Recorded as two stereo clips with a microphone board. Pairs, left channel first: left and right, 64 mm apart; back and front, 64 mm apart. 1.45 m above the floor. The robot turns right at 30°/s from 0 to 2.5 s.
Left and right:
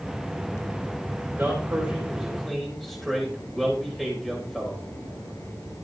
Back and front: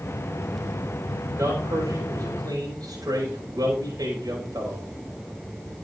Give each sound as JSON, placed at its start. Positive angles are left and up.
{"t": 1.4, "sound": "a man speaking", "azimuth_deg": -30, "distance_m": 5.5}